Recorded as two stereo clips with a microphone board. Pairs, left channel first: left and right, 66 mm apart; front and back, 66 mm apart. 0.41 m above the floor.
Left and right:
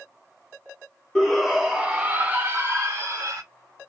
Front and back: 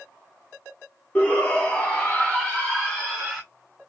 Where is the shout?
15° left, 1.0 m; by 3.4 s 75° right, 1.5 m.